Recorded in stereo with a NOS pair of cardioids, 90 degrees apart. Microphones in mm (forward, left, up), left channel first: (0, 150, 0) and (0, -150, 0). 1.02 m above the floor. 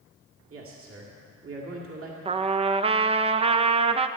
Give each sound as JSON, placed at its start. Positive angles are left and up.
{"t": 0.5, "sound": "a man speaking", "azimuth_deg": -45, "distance_m": 2.0}
{"t": 2.2, "sound": "a trumpet", "azimuth_deg": -20, "distance_m": 0.6}